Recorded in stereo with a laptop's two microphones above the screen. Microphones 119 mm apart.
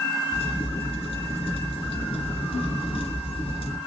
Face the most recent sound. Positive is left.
turn(degrees=60)  # may be behind; listen again after turning